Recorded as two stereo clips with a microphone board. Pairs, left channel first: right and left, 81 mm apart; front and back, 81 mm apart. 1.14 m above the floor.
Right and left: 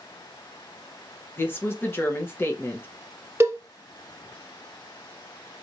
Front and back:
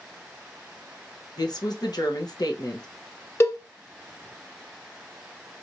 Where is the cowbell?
45° left, 0.8 m.